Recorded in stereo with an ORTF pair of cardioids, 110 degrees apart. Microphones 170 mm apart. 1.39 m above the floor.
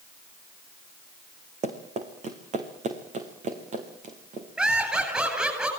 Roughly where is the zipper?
I don't hear a zipper.